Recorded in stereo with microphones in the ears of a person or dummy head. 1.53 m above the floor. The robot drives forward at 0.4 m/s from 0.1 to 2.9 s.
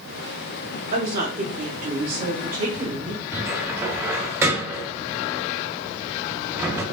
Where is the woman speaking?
55° right (ahead or behind), 2.5 m; by 3.2 s 45° right (ahead or behind), 3 m.